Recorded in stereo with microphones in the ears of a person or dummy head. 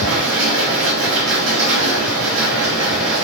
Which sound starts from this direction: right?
A machine running, at 0.0 s.